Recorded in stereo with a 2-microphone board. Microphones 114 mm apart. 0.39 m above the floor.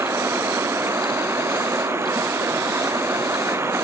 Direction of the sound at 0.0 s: 25° right (ahead or behind).